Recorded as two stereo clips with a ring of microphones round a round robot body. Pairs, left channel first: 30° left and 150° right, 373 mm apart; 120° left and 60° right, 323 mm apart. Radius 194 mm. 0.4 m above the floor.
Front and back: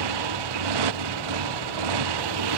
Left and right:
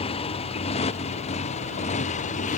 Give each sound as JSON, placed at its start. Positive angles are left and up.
{"t": 0.0, "sound": "a motorcycle", "azimuth_deg": -165}